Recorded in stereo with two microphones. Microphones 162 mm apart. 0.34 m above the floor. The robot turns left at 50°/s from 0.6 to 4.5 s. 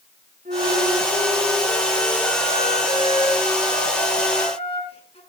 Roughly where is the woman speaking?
I don't hear a woman speaking.